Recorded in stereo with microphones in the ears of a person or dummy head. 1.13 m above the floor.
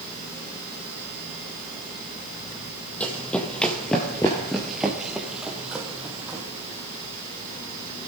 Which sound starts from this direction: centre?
Running footsteps, at 3.0 s.